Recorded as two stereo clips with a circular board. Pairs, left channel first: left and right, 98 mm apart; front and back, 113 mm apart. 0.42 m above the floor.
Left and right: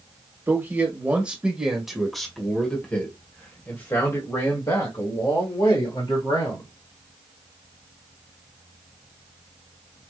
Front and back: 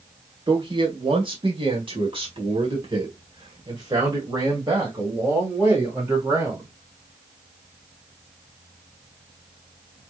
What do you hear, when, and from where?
0.5 s a man speaking: 150° right, 2 m; by 6.7 s 115° left, 3 m